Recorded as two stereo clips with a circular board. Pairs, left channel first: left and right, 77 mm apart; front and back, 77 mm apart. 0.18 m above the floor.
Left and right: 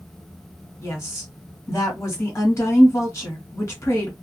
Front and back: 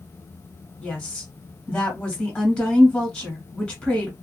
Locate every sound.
0.8 s a woman speaking: 65° left, 1.5 m